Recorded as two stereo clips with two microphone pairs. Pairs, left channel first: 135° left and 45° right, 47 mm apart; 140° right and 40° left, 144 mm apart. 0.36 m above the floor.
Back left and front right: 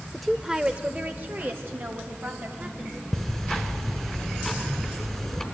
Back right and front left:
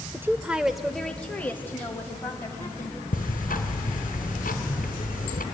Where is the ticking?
140° right, 1.5 m.